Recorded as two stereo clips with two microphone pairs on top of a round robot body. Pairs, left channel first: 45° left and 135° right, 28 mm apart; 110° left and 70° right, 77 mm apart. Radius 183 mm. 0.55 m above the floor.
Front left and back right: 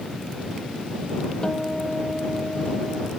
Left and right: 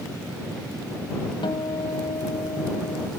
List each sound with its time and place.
1.4 s a guitar: 115° left